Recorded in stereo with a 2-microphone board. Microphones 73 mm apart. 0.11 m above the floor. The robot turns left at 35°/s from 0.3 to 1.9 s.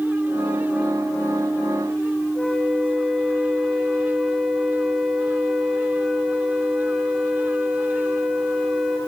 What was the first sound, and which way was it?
A flute, 10° left (ahead or behind).